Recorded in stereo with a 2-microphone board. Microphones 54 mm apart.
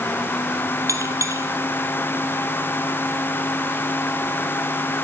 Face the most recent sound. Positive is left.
turn(degrees=-75)  # may be behind; listen again after turning